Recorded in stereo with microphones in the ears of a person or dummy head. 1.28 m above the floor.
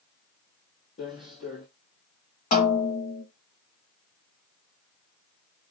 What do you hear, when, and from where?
1.0 s footsteps: 30° left (ahead or behind), 1.8 m
2.5 s a snare drum: 35° left (ahead or behind), 2 m